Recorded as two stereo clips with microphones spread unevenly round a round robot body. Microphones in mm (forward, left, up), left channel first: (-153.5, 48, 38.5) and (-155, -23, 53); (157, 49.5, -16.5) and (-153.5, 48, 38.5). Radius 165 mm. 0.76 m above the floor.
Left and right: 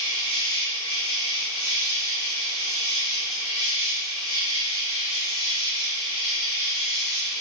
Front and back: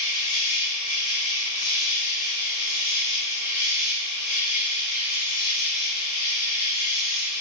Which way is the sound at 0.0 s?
10° left.